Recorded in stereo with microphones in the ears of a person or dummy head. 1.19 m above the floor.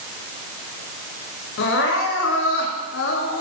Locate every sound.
1.6 s crying: 70° left (ahead or behind), 4 m